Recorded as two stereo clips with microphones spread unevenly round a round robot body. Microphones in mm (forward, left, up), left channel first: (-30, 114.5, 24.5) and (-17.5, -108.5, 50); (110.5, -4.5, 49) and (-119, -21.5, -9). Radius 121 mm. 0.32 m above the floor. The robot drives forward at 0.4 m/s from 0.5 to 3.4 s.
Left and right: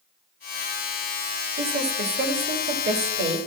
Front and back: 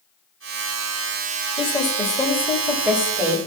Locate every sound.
1.6 s a woman speaking: 70° right, 1.2 m; by 3.4 s 125° right, 1.3 m